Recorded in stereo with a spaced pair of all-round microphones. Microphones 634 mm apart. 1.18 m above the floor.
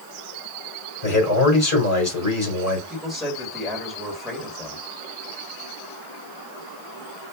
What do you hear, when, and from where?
1.0 s a man speaking: 30° left (ahead or behind), 3.5 m
2.9 s a man speaking: centre (ahead or behind), 2.5 m